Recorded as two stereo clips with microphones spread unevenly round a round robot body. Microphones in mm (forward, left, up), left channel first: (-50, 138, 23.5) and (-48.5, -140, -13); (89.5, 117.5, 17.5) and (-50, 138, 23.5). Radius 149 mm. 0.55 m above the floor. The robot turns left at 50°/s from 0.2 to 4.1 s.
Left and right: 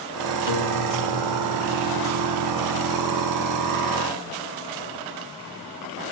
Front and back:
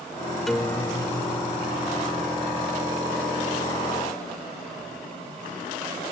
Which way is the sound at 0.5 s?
80° left.